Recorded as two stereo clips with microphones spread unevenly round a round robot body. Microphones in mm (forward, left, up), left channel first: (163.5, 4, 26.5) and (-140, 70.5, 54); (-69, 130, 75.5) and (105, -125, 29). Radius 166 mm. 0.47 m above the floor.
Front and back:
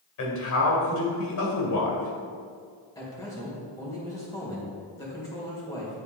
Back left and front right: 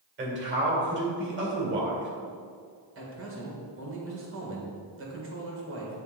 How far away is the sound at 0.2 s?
About 2.5 m.